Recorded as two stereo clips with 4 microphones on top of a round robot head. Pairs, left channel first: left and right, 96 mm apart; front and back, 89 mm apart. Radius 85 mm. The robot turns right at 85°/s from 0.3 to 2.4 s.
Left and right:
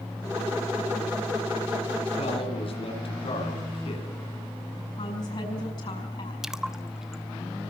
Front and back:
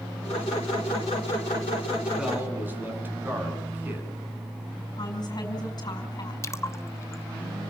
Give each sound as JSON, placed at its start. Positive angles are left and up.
{"t": 2.2, "sound": "a man speaking", "azimuth_deg": 90, "distance_m": 9.0}
{"t": 5.0, "sound": "a woman speaking", "azimuth_deg": 40, "distance_m": 6.0}
{"t": 6.4, "sound": "a splash", "azimuth_deg": -10, "distance_m": 1.2}